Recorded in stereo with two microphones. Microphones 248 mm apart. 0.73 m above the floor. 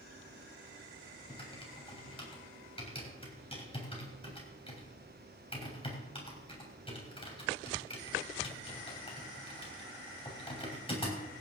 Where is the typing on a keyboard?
20° left (ahead or behind), 3.5 m.